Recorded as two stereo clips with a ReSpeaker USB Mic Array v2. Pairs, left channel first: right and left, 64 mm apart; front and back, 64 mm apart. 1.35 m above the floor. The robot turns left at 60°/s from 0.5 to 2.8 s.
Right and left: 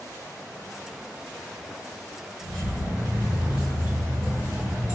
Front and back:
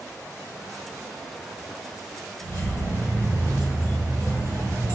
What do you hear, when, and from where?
2.4 s keys jangling: 175° right, 1.8 m; by 5.0 s 160° left, 1.8 m